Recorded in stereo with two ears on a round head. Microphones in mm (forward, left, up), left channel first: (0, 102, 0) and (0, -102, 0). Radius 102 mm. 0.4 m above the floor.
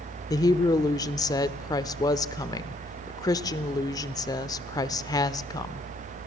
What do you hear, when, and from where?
0.3 s a woman speaking: 15° left (ahead or behind), 0.8 m